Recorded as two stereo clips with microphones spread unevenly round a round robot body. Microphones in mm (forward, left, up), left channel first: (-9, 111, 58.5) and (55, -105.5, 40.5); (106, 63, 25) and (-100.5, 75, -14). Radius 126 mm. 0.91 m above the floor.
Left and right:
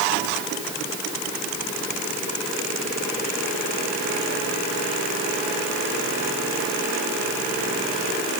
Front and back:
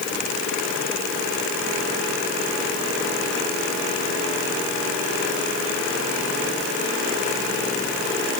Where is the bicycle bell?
I don't hear a bicycle bell.